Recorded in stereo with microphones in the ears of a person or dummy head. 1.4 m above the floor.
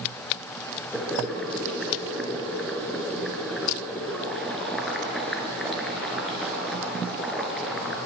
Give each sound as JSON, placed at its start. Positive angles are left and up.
{"t": 0.9, "sound": "boiling", "side_deg": 0, "distance_m": 3.5}